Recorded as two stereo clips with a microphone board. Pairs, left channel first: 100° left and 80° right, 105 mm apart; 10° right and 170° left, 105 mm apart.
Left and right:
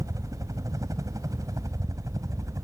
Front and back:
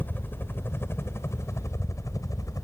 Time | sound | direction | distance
0.0 | a helicopter | 70° right | ?